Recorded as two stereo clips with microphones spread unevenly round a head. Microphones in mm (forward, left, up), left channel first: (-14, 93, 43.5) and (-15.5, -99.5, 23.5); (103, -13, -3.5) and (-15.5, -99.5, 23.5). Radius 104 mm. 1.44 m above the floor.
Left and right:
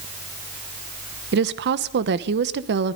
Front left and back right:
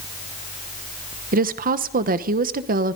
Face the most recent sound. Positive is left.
turn(degrees=-125)